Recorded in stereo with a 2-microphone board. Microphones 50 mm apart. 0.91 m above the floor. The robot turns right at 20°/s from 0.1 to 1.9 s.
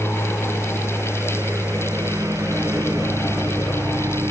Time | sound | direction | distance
0.0 | a lawn mower | 55° right (ahead or behind) | ?